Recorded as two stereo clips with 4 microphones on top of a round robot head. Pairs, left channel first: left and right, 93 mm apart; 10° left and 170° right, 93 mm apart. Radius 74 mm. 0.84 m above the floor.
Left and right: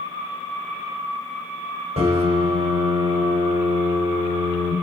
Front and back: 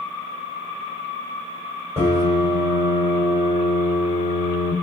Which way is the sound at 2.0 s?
105° right.